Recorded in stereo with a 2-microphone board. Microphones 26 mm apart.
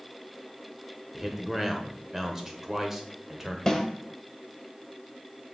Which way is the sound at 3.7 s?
20° left (ahead or behind).